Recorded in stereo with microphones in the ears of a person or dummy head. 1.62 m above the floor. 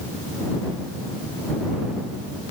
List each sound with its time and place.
Only background noise.